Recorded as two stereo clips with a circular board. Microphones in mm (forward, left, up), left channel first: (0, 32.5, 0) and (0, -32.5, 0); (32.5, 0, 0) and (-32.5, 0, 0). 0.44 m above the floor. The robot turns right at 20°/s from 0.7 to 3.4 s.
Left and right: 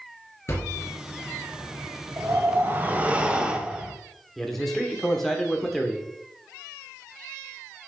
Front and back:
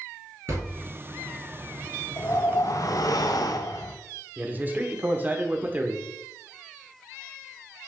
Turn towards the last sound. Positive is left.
turn(degrees=175)